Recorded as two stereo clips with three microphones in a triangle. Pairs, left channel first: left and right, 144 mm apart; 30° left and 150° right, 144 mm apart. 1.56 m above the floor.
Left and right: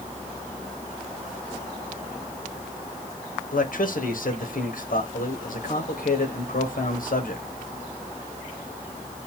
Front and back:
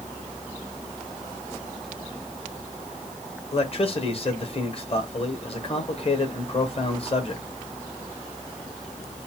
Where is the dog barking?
I don't hear a dog barking.